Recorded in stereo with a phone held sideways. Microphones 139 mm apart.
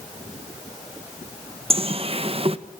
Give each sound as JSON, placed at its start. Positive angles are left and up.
{"t": 1.7, "sound": "a bird", "side_deg": -45, "distance_m": 1.1}